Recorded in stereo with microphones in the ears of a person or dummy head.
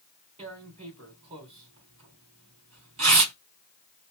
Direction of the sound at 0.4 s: 35° right (ahead or behind).